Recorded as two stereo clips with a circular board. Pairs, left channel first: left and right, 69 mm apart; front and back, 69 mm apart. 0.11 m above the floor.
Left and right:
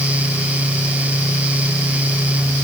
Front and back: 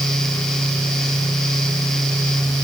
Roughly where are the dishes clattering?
No dishes clattering in this recording.